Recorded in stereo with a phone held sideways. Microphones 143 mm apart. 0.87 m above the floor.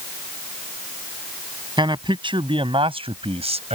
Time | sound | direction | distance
1.8 | a man speaking | 35° right (ahead or behind) | ?